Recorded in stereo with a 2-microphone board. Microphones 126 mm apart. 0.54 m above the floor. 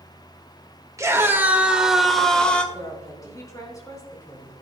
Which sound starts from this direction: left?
A woman speaking, at 2.7 s.